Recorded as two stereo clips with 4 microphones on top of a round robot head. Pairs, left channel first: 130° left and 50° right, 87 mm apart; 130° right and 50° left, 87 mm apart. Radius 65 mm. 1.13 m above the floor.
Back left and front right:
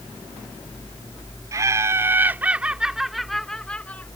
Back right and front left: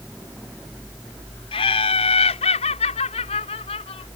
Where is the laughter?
105° right; by 4.1 s 155° right.